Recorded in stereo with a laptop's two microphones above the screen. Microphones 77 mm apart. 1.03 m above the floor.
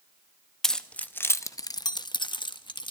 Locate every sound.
0.6 s keys jangling: 5° left (ahead or behind), 0.7 m; by 2.9 s 80° left, 0.9 m